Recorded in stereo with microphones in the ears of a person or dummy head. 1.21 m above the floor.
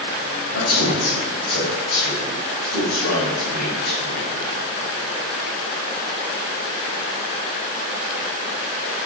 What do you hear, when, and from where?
0.5 s a man speaking: 55° left (ahead or behind), 5 m